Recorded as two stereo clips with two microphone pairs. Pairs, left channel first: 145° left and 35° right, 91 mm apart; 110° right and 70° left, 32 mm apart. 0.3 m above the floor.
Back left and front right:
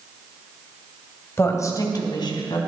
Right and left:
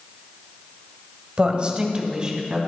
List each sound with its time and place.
1.4 s a woman speaking: 100° left, 1.6 m; by 2.6 s 130° left, 2.5 m